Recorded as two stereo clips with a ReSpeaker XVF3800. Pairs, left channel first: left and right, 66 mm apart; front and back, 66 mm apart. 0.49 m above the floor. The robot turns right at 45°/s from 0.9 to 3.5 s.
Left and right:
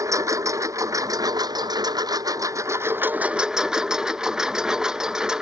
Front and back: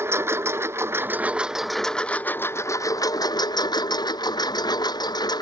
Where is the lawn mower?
125° right; by 5.4 s 10° right.